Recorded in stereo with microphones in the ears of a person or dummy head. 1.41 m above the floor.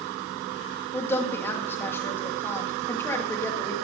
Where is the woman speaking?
10° left (ahead or behind), 2.5 m.